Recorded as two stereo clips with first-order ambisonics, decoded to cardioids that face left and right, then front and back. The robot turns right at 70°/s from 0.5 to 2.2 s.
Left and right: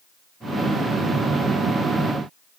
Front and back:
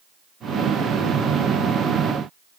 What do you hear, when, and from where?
Only background noise.